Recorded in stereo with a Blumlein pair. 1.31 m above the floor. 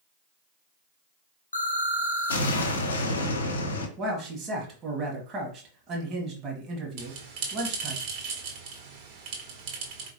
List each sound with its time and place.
1.5 s an explosion: 70° left, 0.8 m
4.0 s a man speaking: 25° right, 1.3 m
7.0 s a bell: 50° right, 1.3 m